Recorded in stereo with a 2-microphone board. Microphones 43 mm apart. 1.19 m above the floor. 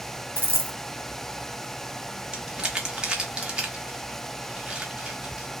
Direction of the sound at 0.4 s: 60° right (ahead or behind).